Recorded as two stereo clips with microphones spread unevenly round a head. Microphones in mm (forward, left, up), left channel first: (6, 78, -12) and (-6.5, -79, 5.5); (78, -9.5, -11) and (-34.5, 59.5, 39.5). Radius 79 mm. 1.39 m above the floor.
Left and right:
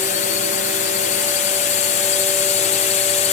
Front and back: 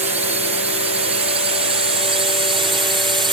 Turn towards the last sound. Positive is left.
turn(degrees=85)